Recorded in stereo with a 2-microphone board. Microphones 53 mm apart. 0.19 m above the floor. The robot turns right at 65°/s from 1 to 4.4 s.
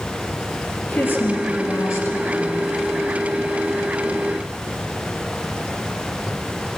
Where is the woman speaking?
45° left, 4.5 m; by 2.6 s 150° left, 4.5 m.